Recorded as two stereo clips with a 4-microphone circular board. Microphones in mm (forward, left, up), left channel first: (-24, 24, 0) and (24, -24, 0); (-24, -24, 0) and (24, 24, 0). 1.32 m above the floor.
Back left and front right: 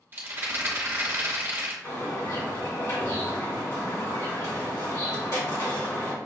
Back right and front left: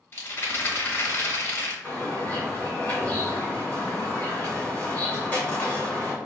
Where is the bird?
160° left, 1.7 m.